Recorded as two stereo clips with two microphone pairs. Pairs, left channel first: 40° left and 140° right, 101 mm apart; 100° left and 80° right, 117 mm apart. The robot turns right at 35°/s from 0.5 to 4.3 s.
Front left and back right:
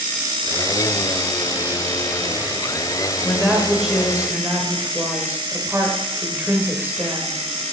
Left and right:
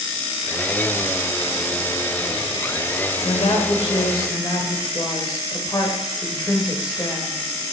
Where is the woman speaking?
115° left, 2 m; by 7.7 s 150° left, 2 m.